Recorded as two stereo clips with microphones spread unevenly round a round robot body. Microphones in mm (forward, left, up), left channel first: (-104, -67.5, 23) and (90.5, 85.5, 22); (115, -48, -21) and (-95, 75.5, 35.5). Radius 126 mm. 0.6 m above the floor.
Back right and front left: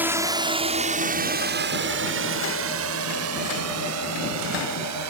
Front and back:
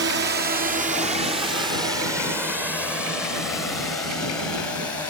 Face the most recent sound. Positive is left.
turn(degrees=50)